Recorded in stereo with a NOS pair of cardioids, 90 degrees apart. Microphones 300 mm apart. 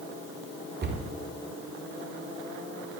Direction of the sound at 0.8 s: 35° right.